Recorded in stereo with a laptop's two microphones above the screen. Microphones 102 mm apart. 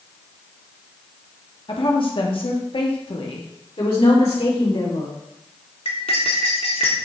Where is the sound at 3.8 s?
80° left, 3 m.